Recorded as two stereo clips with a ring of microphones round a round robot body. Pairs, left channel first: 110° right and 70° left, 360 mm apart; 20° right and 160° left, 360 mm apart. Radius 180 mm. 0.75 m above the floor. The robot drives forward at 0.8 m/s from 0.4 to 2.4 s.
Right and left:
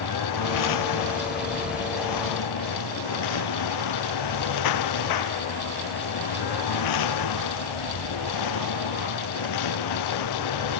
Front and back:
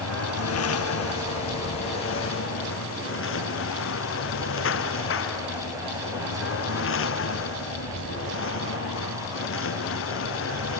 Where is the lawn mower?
75° right; by 10.8 s 80° right.